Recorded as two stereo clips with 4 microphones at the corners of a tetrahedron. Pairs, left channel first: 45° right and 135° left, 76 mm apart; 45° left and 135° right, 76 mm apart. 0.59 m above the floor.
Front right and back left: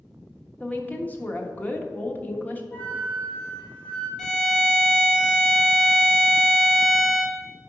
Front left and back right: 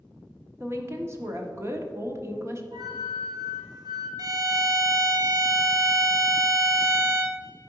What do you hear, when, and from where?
0.6 s a woman speaking: 100° right, 1.3 m
2.7 s a flute: 115° right, 3.5 m
4.2 s a violin: 125° right, 1.0 m